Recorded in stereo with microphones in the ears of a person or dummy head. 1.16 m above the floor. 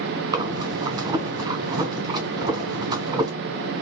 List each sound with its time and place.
0.3 s breathing: 25° right (ahead or behind), 1.4 m